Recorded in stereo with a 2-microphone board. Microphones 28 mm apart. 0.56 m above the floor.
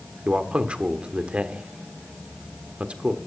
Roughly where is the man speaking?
Right.